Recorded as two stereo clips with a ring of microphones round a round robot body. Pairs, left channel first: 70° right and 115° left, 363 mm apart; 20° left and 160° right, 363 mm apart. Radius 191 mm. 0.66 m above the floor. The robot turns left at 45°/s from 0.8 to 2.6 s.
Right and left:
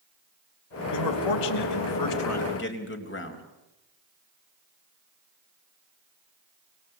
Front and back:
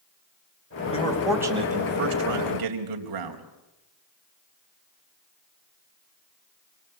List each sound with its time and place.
0.9 s a man speaking: 50° right, 3.5 m; by 3.4 s 125° right, 3.5 m